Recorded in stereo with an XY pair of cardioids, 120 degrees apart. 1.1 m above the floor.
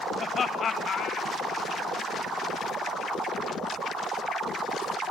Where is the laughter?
30° left, 1.0 m; by 1.9 s 65° left, 1.7 m.